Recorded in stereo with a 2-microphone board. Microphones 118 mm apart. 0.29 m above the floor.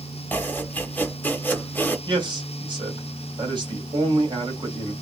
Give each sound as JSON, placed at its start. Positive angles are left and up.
{"t": 0.3, "sound": "chopping", "side_deg": 15, "distance_m": 0.8}
{"t": 2.1, "sound": "a man speaking", "side_deg": -40, "distance_m": 1.8}